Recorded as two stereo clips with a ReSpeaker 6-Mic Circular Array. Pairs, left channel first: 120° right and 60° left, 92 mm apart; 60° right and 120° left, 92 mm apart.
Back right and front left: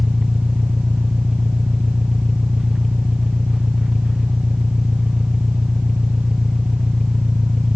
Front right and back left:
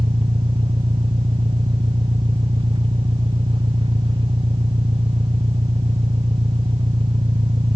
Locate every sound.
0.0 s an engine running: 145° left